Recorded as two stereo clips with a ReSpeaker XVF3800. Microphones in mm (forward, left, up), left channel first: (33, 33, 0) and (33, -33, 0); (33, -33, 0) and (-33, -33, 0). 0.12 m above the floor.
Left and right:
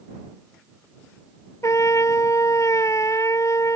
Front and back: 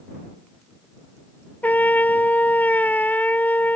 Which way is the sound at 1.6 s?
60° left.